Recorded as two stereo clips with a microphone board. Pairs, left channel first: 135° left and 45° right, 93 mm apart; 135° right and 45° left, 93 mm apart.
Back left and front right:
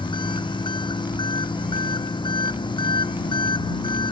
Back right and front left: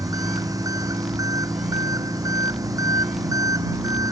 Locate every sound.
0.0 s an engine running: 100° left